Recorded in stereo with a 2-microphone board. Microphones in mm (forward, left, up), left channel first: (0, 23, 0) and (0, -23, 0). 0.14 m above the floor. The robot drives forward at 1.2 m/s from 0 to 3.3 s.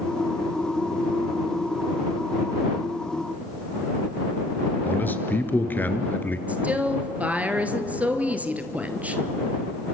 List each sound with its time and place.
4.8 s a man speaking: 40° left (ahead or behind), 2 m
6.5 s a woman speaking: 35° right (ahead or behind), 2.5 m